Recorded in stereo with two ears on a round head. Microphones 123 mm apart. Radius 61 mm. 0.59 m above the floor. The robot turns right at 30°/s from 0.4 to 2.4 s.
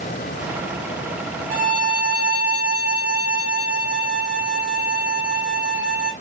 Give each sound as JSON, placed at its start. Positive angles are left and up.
{"t": 1.5, "sound": "a violin", "side_deg": -60, "distance_m": 1.8}